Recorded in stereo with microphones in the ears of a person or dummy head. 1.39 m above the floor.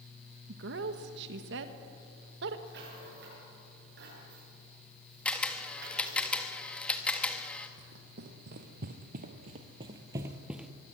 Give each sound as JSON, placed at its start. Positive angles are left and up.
{"t": 0.5, "sound": "a woman speaking", "side_deg": -70, "distance_m": 1.5}
{"t": 2.7, "sound": "a rattle", "side_deg": -65, "distance_m": 8.5}
{"t": 5.2, "sound": "a camera shutter", "side_deg": 5, "distance_m": 1.9}
{"t": 7.8, "sound": "running footsteps", "side_deg": -55, "distance_m": 2.5}